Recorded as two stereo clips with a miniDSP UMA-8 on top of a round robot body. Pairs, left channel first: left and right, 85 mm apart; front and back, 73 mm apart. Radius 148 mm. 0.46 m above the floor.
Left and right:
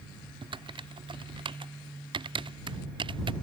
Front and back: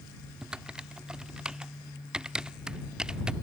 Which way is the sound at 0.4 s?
100° right.